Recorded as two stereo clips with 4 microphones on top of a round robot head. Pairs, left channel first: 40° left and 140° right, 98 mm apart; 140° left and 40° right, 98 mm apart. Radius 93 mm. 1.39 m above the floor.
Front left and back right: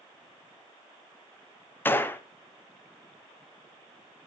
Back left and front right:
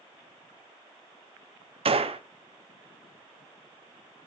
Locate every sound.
1.9 s a gunshot: 30° right, 1.0 m